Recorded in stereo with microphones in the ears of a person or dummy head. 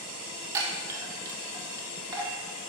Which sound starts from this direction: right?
A chime, at 0.5 s.